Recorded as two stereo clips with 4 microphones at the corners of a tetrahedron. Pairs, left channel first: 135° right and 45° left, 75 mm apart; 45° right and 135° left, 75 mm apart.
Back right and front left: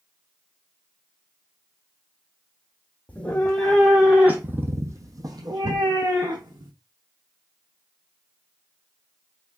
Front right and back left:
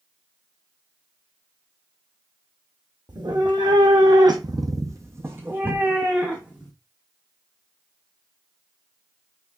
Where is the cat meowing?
155° left, 1.1 m; by 6.7 s 55° left, 1.6 m.